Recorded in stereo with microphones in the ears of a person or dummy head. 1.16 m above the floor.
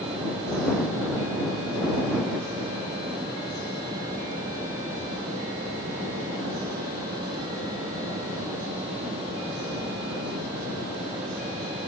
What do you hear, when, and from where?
Only background noise.